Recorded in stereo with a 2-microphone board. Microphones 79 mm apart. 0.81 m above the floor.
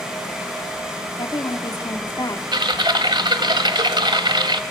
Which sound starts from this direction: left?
A woman speaking, at 1.2 s.